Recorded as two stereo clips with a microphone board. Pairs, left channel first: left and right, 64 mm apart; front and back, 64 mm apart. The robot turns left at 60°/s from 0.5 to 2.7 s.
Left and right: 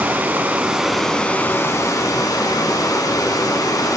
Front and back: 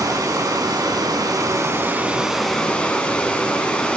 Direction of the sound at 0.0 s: 155° right.